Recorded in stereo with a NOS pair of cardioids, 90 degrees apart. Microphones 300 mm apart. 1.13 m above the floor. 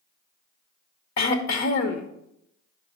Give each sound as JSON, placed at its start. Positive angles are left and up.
{"t": 1.2, "sound": "throat clearing", "azimuth_deg": 65, "distance_m": 1.1}